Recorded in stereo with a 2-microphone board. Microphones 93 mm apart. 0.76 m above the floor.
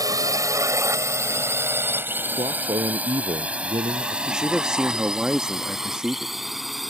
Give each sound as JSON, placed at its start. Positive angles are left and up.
{"t": 0.0, "sound": "a drone", "side_deg": -40}
{"t": 2.3, "sound": "a man speaking", "side_deg": -65}
{"t": 4.3, "sound": "a man speaking", "side_deg": -10}